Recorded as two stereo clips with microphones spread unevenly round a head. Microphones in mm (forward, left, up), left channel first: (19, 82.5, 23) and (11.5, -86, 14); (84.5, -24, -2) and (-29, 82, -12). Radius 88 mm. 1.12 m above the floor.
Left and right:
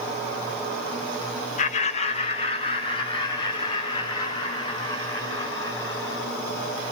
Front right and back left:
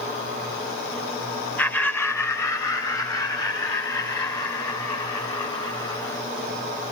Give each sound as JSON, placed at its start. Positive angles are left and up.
{"t": 1.6, "sound": "laughter", "azimuth_deg": 40, "distance_m": 1.4}